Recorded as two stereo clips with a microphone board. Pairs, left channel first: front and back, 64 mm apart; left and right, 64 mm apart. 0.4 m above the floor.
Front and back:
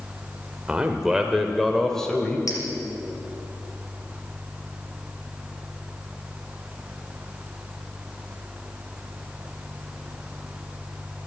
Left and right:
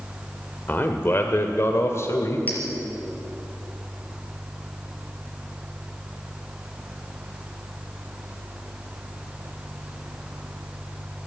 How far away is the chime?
I don't hear a chime.